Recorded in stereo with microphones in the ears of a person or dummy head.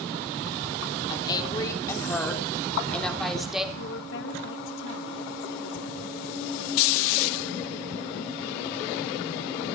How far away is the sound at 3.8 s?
About 2 m.